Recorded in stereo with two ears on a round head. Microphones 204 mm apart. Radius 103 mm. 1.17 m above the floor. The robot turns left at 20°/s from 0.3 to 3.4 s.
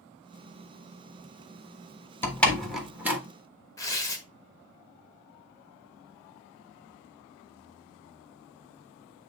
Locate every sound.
2.2 s a door slam: 10° left (ahead or behind), 1.3 m; by 3.2 s 10° right (ahead or behind), 1.3 m
3.8 s tearing paper: 15° left (ahead or behind), 1.5 m